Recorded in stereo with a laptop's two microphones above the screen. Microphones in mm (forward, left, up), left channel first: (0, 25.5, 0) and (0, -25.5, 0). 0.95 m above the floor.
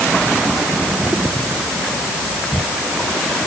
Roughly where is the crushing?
No crushing in this recording.